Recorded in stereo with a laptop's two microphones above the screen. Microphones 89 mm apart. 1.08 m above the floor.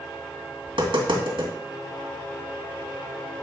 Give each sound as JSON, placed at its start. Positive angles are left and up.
{"t": 0.7, "sound": "tapping", "side_deg": -65, "distance_m": 2.5}